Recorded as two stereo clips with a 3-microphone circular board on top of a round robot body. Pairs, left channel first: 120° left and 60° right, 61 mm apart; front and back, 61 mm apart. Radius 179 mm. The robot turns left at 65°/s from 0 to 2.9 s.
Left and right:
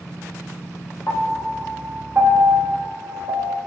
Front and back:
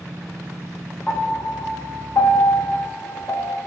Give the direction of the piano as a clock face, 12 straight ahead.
10 o'clock.